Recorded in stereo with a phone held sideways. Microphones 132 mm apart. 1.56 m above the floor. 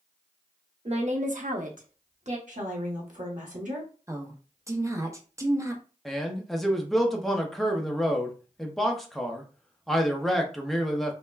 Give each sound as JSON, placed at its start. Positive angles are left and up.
{"t": 0.8, "sound": "a woman speaking", "side_deg": -50, "distance_m": 0.7}
{"t": 2.5, "sound": "a woman speaking", "side_deg": -65, "distance_m": 1.1}
{"t": 4.1, "sound": "a woman speaking", "side_deg": -20, "distance_m": 0.6}
{"t": 6.0, "sound": "a man speaking", "side_deg": 0, "distance_m": 0.6}